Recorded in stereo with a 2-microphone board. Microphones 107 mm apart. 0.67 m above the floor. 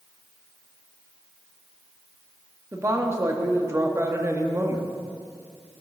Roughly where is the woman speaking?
Right.